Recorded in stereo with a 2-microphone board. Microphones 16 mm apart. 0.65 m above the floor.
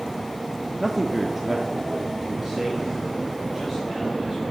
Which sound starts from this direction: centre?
A man speaking, at 0.8 s.